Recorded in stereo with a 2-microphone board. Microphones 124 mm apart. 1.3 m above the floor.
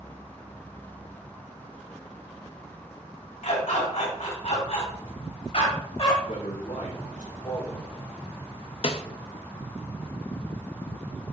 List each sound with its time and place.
3.4 s a dog barking: 75° left (ahead or behind), 3.5 m; by 6.2 s 55° left (ahead or behind), 3 m
6.3 s a man speaking: 75° left (ahead or behind), 2.5 m
8.8 s a snare drum: 50° left (ahead or behind), 0.6 m